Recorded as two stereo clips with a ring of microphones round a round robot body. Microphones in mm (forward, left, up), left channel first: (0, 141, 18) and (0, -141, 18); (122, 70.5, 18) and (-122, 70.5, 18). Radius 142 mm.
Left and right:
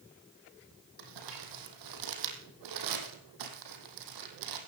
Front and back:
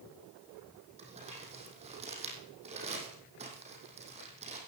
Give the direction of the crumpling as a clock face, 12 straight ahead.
4 o'clock.